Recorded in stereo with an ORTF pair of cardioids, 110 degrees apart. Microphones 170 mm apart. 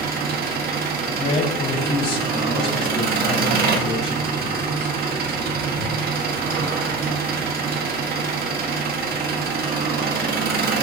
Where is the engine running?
65° right, 2.0 m.